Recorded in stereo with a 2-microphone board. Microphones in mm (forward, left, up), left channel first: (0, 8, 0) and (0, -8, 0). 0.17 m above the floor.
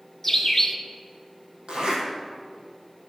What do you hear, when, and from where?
0.2 s a bird: 20° left (ahead or behind), 1.0 m
1.7 s a zipper: 80° right, 3.5 m